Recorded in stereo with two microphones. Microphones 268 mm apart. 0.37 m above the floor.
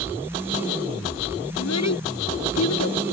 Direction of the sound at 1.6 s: 80° left.